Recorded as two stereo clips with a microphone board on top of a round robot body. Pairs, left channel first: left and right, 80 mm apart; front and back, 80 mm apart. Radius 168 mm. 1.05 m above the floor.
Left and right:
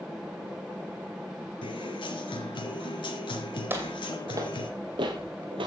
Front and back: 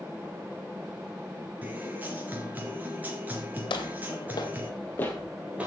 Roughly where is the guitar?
Left.